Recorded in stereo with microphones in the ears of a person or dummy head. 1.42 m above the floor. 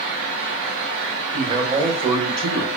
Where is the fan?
70° right (ahead or behind), 1.4 m.